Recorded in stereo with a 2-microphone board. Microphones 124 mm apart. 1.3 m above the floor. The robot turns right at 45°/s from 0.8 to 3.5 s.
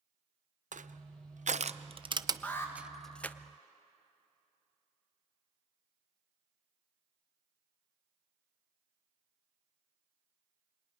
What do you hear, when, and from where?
0.7 s crushing: 80° right, 0.6 m; by 3.4 s 15° left (ahead or behind), 0.6 m
2.4 s an alarm: 10° left (ahead or behind), 2 m; by 2.7 s 25° left (ahead or behind), 2 m